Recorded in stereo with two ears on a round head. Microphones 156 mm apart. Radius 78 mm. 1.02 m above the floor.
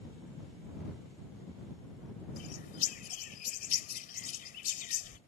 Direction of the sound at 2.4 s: 55° left (ahead or behind).